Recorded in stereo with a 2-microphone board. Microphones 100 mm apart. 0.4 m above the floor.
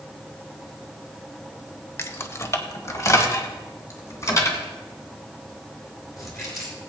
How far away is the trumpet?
No trumpet in this recording.